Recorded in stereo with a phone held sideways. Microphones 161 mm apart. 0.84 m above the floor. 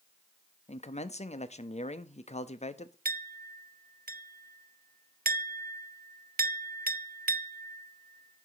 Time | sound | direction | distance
0.7 | a man speaking | 50° left (ahead or behind) | 0.7 m
3.0 | a clink | 75° right (ahead or behind) | 0.5 m